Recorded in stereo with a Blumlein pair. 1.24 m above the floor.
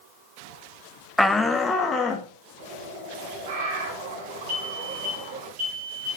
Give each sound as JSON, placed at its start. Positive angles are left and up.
{"t": 1.2, "sound": "a shout", "azimuth_deg": 0, "distance_m": 0.6}
{"t": 2.6, "sound": "a bird", "azimuth_deg": -50, "distance_m": 3.5}
{"t": 4.5, "sound": "a fire alarm", "azimuth_deg": -40, "distance_m": 5.5}